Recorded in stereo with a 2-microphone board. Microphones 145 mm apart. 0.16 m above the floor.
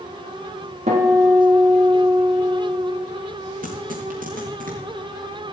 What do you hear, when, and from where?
0.9 s a guitar: 50° right (ahead or behind), 4.5 m
3.6 s tearing paper: 70° right (ahead or behind), 3.5 m